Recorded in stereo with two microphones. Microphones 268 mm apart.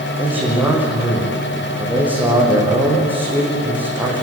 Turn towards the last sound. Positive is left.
turn(degrees=-5)  # may be behind; listen again after turning